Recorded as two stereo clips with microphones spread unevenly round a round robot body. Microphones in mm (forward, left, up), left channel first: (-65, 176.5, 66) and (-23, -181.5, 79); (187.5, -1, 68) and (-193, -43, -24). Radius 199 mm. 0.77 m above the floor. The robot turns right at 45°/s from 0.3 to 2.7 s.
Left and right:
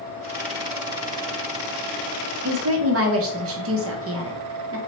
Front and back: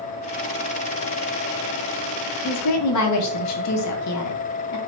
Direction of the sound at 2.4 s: 55° right.